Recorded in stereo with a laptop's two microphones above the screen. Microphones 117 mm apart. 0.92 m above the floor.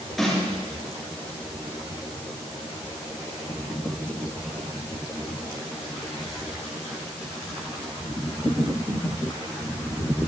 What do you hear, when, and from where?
0.2 s a snare drum: centre (ahead or behind), 7.5 m